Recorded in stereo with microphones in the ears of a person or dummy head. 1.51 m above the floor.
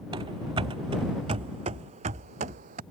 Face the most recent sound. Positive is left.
turn(degrees=-45)  # may be behind; listen again after turning